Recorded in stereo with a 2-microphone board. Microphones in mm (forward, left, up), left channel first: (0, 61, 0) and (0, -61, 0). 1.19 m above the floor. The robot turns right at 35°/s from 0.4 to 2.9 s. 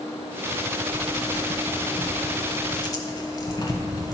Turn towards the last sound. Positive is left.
turn(degrees=30)  # may be behind; listen again after turning